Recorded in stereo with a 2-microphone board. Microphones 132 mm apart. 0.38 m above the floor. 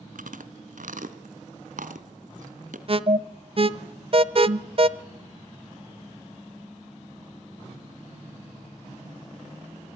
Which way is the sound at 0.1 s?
85° right.